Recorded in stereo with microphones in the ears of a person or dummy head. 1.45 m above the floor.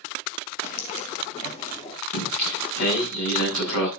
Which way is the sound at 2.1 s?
80° left.